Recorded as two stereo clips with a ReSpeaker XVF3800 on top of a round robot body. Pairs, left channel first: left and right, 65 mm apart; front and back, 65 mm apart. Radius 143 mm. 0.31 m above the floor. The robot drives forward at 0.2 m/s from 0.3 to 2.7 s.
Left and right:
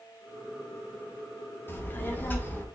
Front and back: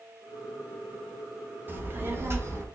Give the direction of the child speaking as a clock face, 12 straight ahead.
8 o'clock.